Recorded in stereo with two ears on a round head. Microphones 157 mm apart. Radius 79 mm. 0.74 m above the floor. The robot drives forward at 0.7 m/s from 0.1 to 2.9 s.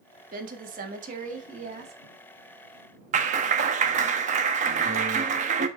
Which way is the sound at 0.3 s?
50° right (ahead or behind).